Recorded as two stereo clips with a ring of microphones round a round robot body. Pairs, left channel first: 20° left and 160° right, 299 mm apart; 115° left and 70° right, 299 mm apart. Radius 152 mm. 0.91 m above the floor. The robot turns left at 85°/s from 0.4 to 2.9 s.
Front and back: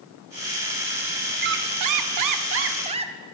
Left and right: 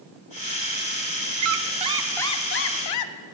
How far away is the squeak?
About 0.7 m.